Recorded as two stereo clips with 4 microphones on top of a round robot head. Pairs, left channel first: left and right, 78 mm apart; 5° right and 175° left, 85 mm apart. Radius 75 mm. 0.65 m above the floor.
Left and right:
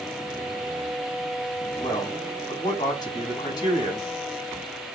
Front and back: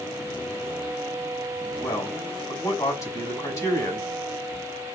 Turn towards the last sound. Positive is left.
turn(degrees=45)